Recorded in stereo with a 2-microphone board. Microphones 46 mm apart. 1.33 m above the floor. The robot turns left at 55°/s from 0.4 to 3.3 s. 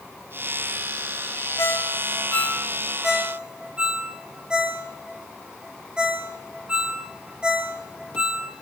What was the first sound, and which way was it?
A ringtone, 75° left (ahead or behind).